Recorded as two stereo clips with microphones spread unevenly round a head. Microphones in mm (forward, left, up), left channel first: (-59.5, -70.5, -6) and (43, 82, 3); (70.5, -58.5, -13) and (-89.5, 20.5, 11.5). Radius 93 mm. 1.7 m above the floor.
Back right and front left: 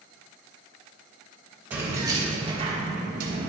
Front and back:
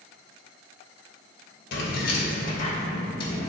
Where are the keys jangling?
20° right, 1.2 m; by 3.5 s 45° left, 1.3 m.